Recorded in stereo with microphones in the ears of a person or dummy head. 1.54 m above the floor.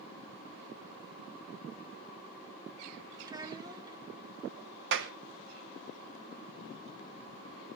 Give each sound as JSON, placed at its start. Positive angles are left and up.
{"t": 3.2, "sound": "a child speaking", "side_deg": -25, "distance_m": 1.8}
{"t": 4.9, "sound": "a clap", "side_deg": -70, "distance_m": 1.1}